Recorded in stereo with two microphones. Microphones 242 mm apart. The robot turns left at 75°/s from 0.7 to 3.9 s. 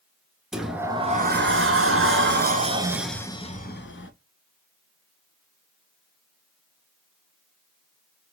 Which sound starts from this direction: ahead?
A sliding door, at 0.5 s.